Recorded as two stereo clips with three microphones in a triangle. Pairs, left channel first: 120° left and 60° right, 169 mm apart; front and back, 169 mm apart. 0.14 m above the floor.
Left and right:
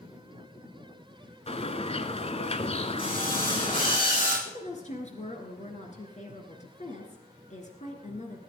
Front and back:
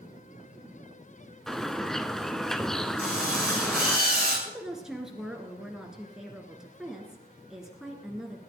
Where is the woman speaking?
95° left, 2 m.